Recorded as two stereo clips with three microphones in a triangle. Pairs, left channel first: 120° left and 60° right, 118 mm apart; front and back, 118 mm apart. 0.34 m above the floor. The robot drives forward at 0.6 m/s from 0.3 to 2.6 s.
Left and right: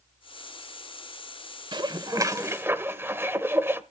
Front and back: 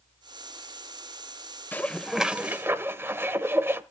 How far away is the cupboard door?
I don't hear a cupboard door.